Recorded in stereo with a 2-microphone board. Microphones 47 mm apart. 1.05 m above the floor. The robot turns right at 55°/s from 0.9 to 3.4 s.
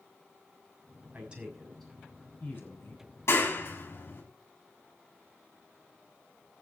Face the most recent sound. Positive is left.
turn(degrees=55)  # may be behind; listen again after turning